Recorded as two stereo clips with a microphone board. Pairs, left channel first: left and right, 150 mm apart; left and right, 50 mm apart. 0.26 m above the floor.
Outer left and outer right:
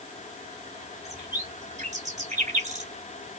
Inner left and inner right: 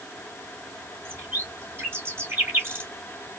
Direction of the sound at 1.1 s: 50° right (ahead or behind).